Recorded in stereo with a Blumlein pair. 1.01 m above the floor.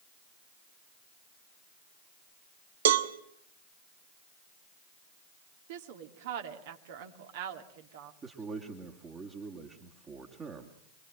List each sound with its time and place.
2.9 s a cowbell: 60° right, 1.4 m
5.7 s a woman speaking: 50° right, 2.5 m
8.2 s a man speaking: 20° right, 2.5 m